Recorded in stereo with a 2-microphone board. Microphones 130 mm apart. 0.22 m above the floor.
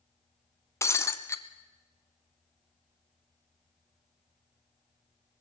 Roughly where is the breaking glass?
Left.